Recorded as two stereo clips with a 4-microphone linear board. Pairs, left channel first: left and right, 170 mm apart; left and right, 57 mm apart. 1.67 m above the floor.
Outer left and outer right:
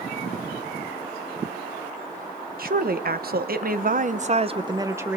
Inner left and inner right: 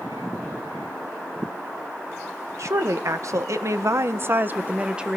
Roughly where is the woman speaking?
Right.